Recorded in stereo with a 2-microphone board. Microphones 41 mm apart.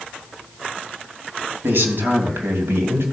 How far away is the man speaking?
About 3 m.